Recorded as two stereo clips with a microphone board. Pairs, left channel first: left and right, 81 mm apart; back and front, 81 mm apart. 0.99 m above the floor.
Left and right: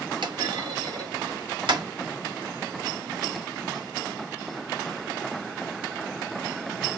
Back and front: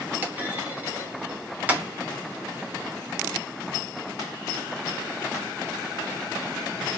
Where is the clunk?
70° right, 1.8 m.